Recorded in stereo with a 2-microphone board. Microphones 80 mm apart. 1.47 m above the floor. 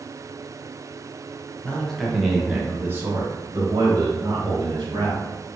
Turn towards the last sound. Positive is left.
turn(degrees=-75)  # may be behind; listen again after turning